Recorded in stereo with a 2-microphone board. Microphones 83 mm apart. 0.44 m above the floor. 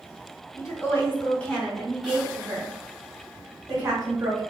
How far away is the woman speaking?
About 1.0 m.